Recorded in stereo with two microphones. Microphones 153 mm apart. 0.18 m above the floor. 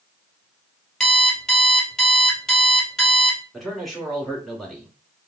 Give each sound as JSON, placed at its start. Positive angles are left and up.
{"t": 1.0, "sound": "an alarm clock", "side_deg": 5, "distance_m": 1.9}
{"t": 3.5, "sound": "a man speaking", "side_deg": 0, "distance_m": 2.0}